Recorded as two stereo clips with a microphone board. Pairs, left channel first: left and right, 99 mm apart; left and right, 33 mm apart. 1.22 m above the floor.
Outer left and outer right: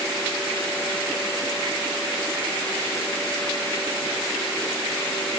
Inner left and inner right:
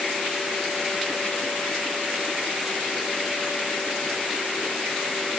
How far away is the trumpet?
I don't hear a trumpet.